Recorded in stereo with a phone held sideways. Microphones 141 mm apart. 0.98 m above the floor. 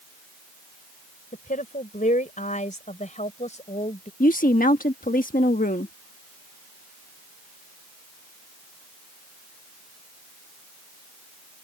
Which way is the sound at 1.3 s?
75° left (ahead or behind).